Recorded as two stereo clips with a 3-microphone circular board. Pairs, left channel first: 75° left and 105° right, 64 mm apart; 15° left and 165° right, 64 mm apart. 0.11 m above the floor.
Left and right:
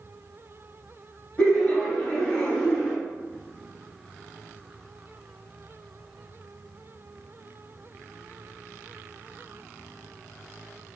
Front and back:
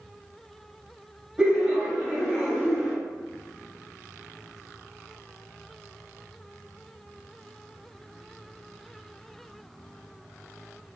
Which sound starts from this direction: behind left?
Laughter, at 1.4 s.